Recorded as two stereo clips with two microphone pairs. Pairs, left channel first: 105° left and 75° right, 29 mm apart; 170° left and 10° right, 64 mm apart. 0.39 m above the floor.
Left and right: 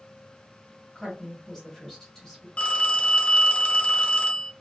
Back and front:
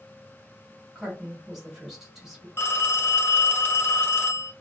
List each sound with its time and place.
0.9 s a woman speaking: 60° left, 1.5 m
2.6 s a phone ringing: 135° left, 0.7 m